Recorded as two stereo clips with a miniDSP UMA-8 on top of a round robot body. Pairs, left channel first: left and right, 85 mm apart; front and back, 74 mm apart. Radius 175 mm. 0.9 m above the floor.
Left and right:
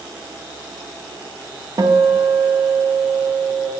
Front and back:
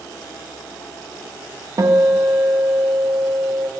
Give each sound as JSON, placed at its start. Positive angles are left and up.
{"t": 1.8, "sound": "a guitar", "azimuth_deg": -140, "distance_m": 1.0}